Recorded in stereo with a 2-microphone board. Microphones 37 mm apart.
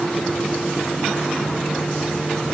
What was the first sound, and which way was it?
Only background noise.